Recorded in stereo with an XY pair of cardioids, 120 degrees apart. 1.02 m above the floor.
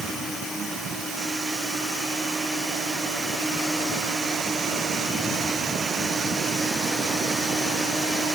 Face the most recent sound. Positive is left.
No sound to turn to.